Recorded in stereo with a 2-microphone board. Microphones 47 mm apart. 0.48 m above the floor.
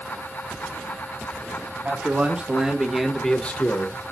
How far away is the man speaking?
About 3 m.